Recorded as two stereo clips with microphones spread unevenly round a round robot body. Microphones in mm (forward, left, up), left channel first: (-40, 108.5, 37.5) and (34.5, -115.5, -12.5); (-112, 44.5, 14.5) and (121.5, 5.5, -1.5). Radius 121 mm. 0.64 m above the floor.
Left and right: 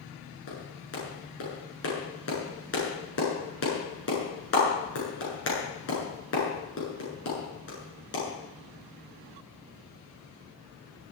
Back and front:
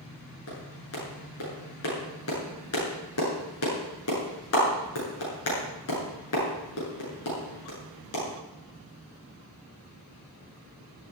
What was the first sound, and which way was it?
A clap, 145° left.